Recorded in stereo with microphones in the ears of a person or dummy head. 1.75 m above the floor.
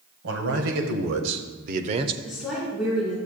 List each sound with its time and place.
0.2 s a man speaking: 70° right (ahead or behind), 1.6 m; by 2.1 s 25° right (ahead or behind), 0.7 m
2.2 s a woman speaking: centre (ahead or behind), 3.5 m